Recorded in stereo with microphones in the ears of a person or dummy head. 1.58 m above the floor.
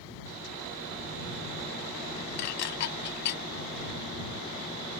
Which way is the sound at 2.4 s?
50° left (ahead or behind).